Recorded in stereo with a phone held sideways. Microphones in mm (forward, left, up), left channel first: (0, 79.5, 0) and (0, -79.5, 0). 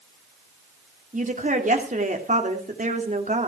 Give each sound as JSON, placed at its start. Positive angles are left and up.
{"t": 1.1, "sound": "a woman speaking", "side_deg": -55, "distance_m": 2.5}